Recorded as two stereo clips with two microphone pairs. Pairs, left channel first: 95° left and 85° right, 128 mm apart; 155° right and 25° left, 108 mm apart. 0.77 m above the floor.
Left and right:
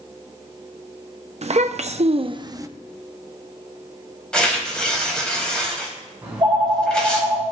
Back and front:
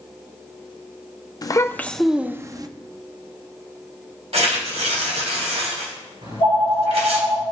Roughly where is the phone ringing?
Ahead.